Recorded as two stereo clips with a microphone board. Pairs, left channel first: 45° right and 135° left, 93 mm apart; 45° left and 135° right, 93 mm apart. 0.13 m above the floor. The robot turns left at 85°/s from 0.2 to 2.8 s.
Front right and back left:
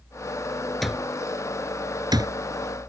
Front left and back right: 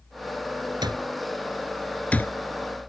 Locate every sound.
0.8 s an alarm clock: 135° right; by 2.3 s 95° left